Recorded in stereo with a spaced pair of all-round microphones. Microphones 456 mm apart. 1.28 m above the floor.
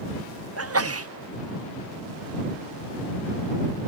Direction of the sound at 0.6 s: 30° right (ahead or behind).